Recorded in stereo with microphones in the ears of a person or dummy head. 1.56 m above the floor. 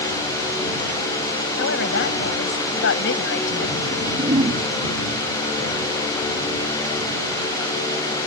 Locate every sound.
1.6 s a woman speaking: 75° left (ahead or behind)
3.9 s a whoosh: 40° right (ahead or behind)